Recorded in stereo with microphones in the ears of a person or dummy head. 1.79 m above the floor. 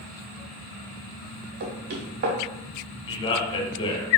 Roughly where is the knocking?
Right.